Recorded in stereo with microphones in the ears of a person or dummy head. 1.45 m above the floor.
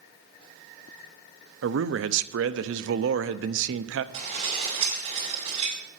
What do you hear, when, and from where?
1.6 s a man speaking: 60° right (ahead or behind), 0.7 m
4.1 s dishes clattering: 25° right (ahead or behind), 5 m